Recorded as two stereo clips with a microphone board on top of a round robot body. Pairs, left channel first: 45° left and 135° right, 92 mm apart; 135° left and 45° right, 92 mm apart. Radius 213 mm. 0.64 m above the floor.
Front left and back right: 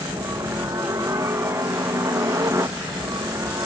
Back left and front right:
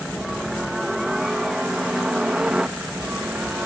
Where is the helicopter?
130° right; by 3.7 s 115° right.